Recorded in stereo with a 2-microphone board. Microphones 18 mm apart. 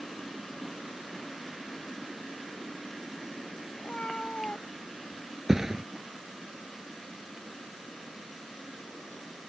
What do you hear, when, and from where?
3.8 s a cat meowing: 85° left; by 5.3 s 90° left
5.5 s a thud: 20° right (ahead or behind)